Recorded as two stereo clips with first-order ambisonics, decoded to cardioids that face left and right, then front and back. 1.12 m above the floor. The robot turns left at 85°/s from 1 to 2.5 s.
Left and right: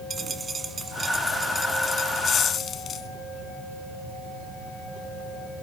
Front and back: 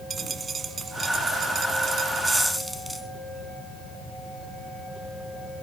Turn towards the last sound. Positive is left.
turn(degrees=100)